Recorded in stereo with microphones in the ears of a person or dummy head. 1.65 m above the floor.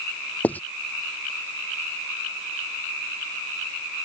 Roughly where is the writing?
Centre.